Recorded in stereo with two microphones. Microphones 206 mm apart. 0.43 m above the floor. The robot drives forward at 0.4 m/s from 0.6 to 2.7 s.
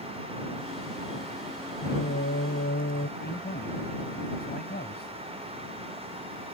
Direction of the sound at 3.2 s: 50° left (ahead or behind).